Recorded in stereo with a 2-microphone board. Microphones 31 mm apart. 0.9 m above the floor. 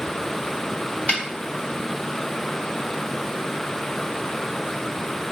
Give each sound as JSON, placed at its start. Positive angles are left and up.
{"t": 1.1, "sound": "a snare drum", "side_deg": 50, "distance_m": 1.6}